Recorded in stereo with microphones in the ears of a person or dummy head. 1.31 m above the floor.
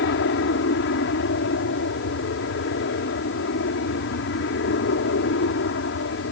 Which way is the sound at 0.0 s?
60° left (ahead or behind).